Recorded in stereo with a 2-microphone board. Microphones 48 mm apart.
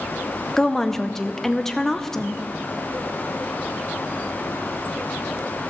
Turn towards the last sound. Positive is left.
turn(degrees=10)  # may be behind; listen again after turning